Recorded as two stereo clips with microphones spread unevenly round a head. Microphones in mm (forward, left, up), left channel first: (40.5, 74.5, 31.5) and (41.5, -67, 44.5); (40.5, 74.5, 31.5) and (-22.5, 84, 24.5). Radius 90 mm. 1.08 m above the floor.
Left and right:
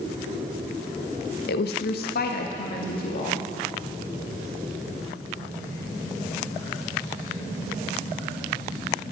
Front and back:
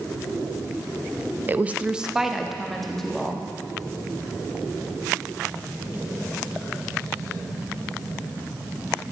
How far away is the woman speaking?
About 0.7 m.